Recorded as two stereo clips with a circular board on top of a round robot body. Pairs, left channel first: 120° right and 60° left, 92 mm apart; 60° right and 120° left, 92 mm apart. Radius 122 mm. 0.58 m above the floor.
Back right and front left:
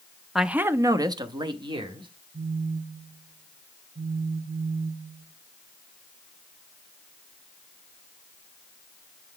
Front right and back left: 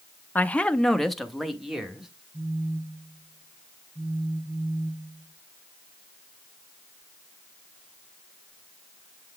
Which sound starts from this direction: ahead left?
A phone buzzing, at 2.3 s.